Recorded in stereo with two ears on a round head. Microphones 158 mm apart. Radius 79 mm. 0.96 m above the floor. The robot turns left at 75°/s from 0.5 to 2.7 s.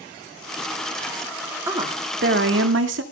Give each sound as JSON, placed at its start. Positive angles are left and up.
{"t": 1.7, "sound": "a woman speaking", "azimuth_deg": -15, "distance_m": 2.0}